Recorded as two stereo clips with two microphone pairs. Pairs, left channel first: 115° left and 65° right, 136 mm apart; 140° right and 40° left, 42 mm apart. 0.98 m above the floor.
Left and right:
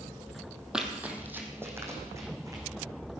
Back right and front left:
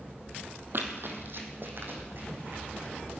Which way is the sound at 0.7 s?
15° left.